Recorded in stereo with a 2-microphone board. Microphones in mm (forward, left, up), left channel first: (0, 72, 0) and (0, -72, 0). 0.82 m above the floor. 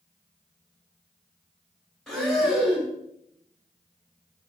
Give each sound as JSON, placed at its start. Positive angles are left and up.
{"t": 2.1, "sound": "breathing", "side_deg": 0, "distance_m": 2.0}